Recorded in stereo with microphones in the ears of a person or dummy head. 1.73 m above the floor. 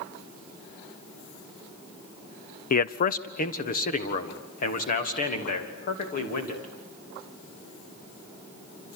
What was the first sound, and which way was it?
A man speaking, 45° left (ahead or behind).